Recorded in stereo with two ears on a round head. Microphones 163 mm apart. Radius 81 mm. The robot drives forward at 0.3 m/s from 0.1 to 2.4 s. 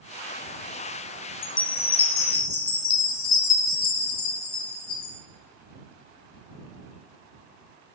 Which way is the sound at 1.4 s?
65° left (ahead or behind).